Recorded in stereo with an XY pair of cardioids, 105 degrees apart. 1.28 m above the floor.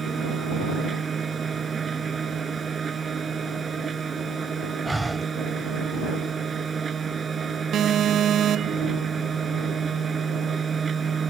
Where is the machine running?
40° right.